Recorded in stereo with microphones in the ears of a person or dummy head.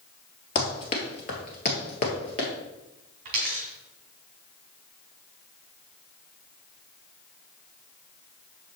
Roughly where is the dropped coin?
Right.